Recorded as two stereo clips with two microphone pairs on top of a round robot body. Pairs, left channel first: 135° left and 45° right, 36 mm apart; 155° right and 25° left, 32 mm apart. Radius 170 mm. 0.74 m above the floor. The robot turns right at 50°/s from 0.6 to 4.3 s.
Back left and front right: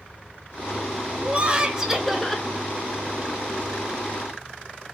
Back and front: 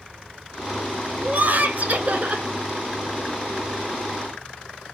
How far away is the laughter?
About 0.9 m.